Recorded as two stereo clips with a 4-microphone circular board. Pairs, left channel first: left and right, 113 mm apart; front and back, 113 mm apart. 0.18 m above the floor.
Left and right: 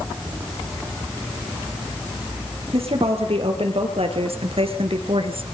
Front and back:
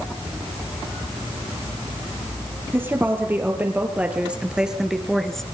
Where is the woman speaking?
110° right, 5 m; by 5.4 s 85° right, 2.5 m.